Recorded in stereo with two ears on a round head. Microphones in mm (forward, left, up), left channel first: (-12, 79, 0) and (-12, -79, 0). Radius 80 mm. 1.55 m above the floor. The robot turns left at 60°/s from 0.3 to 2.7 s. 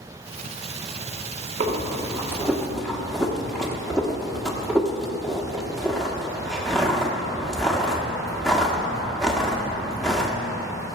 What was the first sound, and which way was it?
Breathing, 40° right (ahead or behind).